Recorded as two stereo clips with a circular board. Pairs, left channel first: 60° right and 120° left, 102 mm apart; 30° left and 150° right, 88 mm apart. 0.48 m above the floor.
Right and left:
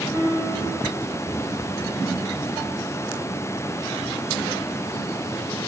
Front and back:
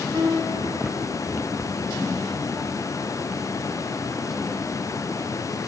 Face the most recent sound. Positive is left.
turn(degrees=170)